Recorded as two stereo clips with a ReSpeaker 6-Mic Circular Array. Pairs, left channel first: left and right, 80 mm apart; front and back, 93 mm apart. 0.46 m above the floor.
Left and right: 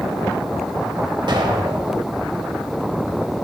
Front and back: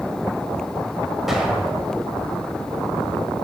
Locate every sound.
1.3 s an explosion: 95° right, 1.2 m